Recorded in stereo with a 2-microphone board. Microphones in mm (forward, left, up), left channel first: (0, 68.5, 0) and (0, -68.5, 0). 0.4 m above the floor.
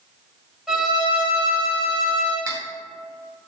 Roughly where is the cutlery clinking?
Right.